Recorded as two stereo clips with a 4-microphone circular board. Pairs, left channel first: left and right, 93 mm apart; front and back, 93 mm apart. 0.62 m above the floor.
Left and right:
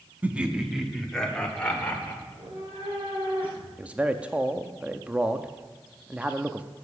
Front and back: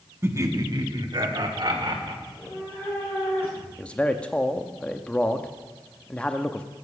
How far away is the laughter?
About 1.0 m.